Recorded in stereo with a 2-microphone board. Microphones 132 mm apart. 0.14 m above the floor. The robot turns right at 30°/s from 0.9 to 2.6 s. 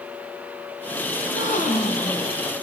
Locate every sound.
1.2 s a gasp: 55° left, 4 m; by 2.3 s 85° left, 4 m